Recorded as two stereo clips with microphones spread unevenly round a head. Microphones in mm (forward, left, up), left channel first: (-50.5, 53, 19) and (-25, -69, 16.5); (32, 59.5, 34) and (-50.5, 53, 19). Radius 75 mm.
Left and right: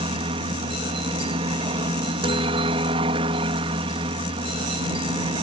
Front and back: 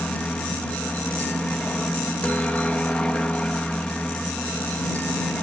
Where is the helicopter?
75° right.